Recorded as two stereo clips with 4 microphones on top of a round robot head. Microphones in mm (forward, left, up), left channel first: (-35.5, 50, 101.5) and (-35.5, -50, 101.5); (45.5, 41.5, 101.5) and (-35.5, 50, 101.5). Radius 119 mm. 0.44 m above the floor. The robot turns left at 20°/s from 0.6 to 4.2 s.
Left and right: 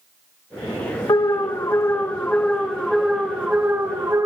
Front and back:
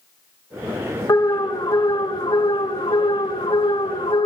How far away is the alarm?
About 1.9 m.